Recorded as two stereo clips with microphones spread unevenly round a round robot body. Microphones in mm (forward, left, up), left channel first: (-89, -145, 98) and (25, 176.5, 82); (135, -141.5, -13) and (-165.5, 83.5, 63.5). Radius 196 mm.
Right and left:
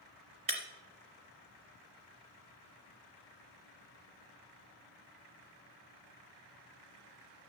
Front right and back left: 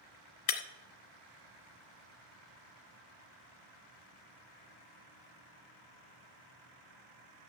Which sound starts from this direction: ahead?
Breaking glass, at 0.5 s.